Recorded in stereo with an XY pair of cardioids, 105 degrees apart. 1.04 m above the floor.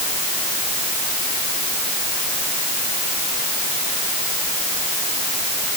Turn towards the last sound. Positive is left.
No sound to turn to.